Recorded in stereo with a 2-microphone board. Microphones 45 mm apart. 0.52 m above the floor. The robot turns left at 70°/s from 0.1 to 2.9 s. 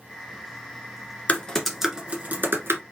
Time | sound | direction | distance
1.3 | typing on a keyboard | 35° left (ahead or behind) | 1.4 m